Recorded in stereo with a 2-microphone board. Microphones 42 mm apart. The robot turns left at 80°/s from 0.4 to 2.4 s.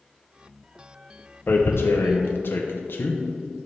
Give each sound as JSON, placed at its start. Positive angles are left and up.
{"t": 1.5, "sound": "tearing paper", "side_deg": 45, "distance_m": 0.7}